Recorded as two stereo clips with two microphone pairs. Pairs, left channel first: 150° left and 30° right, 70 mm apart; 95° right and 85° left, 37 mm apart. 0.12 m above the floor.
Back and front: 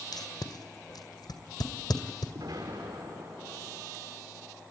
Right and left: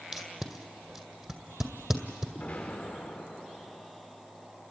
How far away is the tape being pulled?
About 2 m.